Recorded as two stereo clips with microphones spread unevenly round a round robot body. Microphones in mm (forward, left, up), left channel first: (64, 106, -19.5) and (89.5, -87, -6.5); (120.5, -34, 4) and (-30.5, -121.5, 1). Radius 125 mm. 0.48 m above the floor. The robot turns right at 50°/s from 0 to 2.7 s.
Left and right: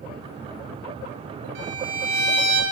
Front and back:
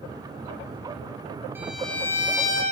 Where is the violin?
70° right, 1.5 m; by 2.6 s 20° right, 1.5 m.